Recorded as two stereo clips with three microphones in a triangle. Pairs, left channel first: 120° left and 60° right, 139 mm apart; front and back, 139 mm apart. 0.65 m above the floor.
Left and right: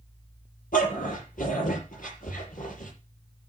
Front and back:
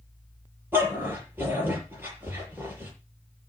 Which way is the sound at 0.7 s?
105° left.